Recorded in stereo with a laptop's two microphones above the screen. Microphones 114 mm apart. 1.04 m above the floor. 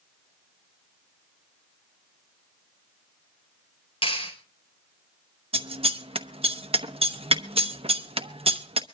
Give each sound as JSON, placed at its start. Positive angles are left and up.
{"t": 4.0, "sound": "a clap", "side_deg": 55, "distance_m": 4.5}
{"t": 5.5, "sound": "scissors", "side_deg": -55, "distance_m": 1.0}